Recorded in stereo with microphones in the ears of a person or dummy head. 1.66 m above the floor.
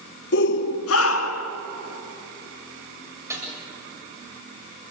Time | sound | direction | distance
0.3 | a shout | 65° left (ahead or behind) | 2.0 m
3.3 | a snare drum | 15° right (ahead or behind) | 8 m